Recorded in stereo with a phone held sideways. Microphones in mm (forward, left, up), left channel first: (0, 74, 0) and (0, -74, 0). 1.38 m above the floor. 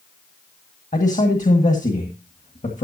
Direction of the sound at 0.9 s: 55° left (ahead or behind).